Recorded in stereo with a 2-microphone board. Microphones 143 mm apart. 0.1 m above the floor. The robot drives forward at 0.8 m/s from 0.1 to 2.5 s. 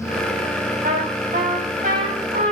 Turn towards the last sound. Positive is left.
turn(degrees=-65)  # may be behind; listen again after turning